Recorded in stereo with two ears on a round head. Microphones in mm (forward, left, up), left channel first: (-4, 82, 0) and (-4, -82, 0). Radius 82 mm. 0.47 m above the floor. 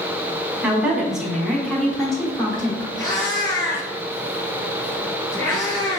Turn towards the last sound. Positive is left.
turn(degrees=25)  # may be behind; listen again after turning